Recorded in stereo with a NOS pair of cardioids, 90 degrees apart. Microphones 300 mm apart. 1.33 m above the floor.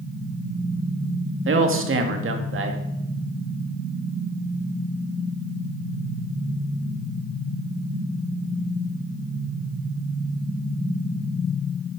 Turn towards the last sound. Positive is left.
turn(degrees=-45)